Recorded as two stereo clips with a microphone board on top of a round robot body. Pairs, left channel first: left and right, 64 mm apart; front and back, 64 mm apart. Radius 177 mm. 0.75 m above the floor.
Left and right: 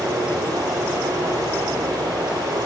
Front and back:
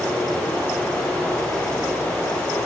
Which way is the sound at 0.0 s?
75° right.